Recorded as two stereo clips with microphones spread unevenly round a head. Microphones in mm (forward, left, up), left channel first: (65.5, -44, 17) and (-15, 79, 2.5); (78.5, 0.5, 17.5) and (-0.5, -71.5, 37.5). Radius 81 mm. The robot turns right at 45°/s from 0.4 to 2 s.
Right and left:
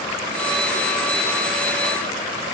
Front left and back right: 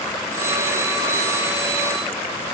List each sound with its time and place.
Only background noise.